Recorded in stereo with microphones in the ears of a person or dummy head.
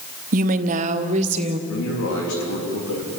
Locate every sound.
0.3 s a woman speaking: 45° right (ahead or behind), 1.0 m; by 1.6 s 35° right (ahead or behind), 1.7 m
1.7 s a man speaking: 75° left (ahead or behind), 3.5 m